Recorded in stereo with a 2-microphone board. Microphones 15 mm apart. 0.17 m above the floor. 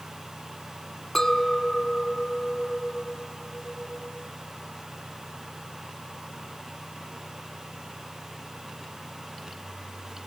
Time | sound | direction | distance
1.1 | a clink | 25° left (ahead or behind) | 0.8 m